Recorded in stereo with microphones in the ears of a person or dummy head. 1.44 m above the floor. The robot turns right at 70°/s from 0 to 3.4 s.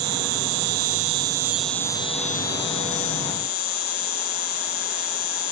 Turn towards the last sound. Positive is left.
turn(degrees=130)